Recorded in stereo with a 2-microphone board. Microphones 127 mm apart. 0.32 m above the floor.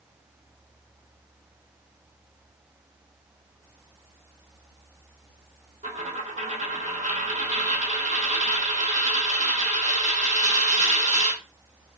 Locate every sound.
5.8 s a dropped coin: 80° right, 1.2 m